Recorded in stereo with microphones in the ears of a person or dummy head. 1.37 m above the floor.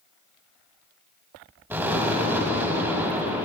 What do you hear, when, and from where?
1.7 s an explosion: 15° right (ahead or behind), 6 m